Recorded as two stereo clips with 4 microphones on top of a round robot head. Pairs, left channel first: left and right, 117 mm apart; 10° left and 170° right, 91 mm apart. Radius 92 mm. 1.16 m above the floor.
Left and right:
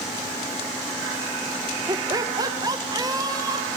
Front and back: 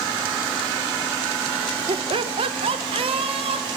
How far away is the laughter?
About 1.2 m.